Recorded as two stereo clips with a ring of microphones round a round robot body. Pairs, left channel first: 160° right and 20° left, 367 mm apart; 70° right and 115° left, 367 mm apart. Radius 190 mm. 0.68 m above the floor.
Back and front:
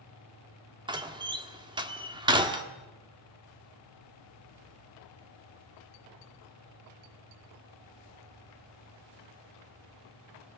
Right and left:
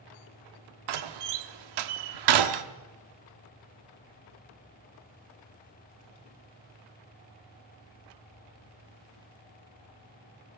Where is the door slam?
100° left, 1.3 m.